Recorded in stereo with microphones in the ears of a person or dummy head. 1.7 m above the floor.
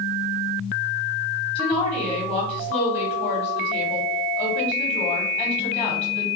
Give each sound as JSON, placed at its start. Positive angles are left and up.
{"t": 1.6, "sound": "a woman speaking", "side_deg": 10, "distance_m": 1.0}